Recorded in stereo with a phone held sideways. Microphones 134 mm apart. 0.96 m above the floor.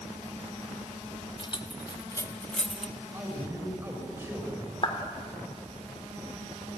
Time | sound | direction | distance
1.4 | keys jangling | 40° left (ahead or behind) | 1.2 m
3.0 | a man speaking | 20° right (ahead or behind) | 6 m
4.8 | a clap | 40° left (ahead or behind) | 2.5 m